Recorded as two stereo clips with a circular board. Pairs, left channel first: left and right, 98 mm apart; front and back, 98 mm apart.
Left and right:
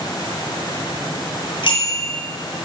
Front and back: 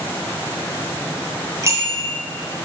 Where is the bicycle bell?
120° left, 3.5 m.